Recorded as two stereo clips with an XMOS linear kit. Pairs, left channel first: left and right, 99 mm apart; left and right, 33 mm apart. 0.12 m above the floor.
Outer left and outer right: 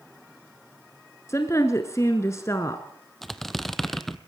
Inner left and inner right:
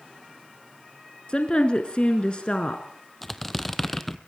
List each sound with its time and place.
1.3 s a woman speaking: 30° left (ahead or behind), 1.2 m
3.2 s a squeak: 5° left (ahead or behind), 0.7 m